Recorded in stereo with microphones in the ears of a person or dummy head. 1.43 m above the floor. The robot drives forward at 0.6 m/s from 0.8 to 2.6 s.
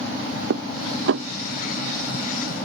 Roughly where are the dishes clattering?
Right.